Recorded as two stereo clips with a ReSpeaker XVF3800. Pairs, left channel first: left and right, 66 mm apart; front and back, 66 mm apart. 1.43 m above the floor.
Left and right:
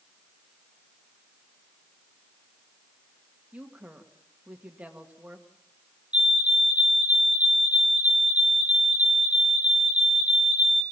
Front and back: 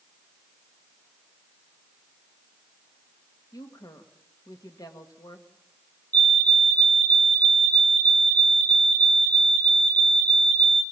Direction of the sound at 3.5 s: 20° right.